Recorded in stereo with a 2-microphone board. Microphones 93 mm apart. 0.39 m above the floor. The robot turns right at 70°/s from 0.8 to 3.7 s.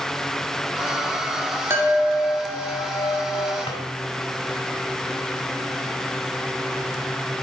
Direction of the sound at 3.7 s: 80° left.